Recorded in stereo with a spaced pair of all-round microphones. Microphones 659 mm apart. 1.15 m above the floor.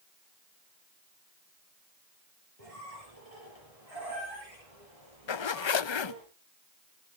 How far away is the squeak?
About 6.5 m.